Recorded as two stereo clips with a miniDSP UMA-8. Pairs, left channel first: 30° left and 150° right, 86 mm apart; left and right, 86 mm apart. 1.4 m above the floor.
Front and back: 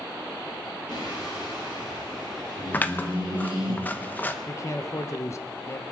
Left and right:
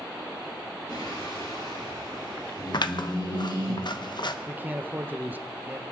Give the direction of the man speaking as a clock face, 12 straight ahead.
1 o'clock.